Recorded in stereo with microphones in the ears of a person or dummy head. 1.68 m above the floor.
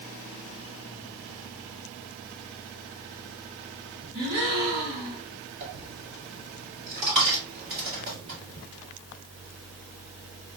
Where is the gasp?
20° right (ahead or behind), 1.9 m.